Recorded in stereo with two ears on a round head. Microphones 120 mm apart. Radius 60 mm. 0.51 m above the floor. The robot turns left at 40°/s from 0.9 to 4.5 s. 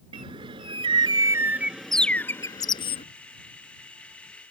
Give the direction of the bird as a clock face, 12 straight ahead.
5 o'clock.